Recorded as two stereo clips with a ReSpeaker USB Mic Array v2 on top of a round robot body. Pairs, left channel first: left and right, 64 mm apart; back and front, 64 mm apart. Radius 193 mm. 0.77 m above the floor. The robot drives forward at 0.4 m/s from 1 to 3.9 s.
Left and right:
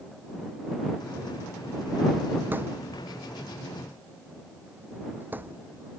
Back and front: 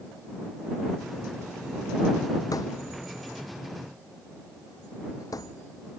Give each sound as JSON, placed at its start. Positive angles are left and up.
{"t": 2.5, "sound": "a thud", "azimuth_deg": -150}